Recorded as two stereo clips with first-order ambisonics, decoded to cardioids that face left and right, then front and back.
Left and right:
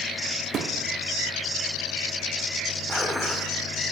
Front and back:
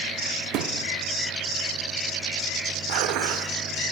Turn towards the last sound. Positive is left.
turn(degrees=175)